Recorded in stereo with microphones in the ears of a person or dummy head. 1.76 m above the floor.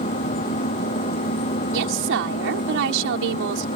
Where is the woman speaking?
75° right (ahead or behind).